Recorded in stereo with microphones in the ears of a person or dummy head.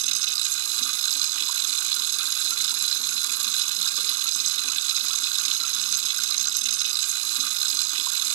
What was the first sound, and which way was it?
Running water, 80° right.